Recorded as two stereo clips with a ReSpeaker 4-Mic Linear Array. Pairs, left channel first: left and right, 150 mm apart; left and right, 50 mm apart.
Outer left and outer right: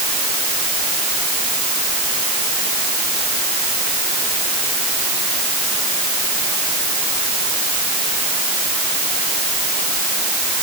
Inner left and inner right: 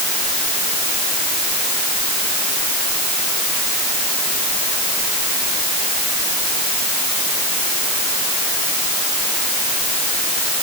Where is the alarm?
No alarm in this recording.